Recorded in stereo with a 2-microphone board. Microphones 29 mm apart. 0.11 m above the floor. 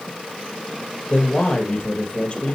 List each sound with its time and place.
1.1 s a man speaking: 45° left (ahead or behind), 3 m